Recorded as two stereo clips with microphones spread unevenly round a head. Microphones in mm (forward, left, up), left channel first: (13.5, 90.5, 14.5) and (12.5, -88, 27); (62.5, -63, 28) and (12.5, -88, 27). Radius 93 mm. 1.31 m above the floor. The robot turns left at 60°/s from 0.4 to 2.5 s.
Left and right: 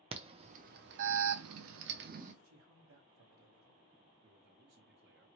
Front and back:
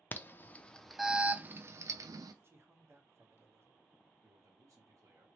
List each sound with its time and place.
0.1 s an alarm: 30° right, 0.6 m; by 2.3 s 145° right, 0.6 m
2.4 s a man speaking: 105° right, 1.2 m; by 3.8 s 110° right, 1.2 m
4.2 s a man speaking: 125° right, 0.9 m